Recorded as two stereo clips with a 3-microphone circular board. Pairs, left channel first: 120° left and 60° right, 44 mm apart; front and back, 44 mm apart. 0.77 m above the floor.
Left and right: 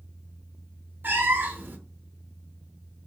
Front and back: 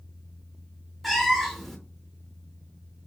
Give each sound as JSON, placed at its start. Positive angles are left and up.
{"t": 1.0, "sound": "a cat meowing", "azimuth_deg": -90, "distance_m": 0.5}